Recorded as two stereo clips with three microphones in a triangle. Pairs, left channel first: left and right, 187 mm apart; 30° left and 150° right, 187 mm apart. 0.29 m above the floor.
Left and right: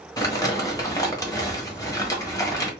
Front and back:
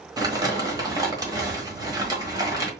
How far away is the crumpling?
About 1.2 m.